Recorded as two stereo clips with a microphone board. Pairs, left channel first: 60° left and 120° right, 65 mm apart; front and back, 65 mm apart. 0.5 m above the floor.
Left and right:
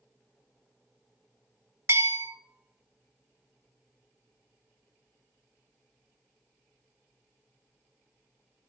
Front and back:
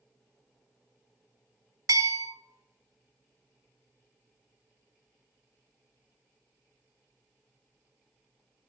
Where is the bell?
165° right, 0.6 m.